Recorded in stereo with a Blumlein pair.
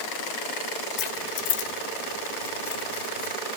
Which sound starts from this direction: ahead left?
Keys jangling, at 1.0 s.